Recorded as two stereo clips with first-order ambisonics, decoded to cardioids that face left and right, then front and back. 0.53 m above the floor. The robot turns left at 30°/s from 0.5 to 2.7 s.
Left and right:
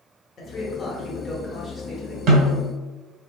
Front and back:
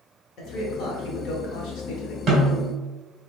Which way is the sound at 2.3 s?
120° right.